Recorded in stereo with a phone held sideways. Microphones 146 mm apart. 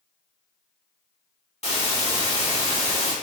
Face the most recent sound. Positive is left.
turn(degrees=50)  # may be behind; listen again after turning